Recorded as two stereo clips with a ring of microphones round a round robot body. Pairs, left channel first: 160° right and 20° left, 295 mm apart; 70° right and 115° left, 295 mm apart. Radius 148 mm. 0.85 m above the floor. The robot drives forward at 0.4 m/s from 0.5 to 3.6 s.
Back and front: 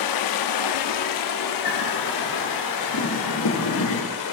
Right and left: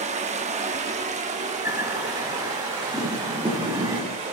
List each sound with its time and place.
0.0 s running water: straight behind, 0.8 m
1.6 s a bird: 170° right, 2 m